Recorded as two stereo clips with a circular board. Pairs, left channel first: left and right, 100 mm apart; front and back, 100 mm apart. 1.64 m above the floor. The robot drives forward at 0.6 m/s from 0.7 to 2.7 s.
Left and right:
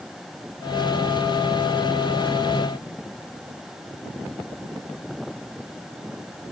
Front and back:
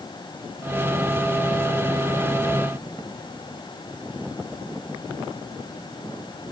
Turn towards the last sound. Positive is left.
No sound to turn to.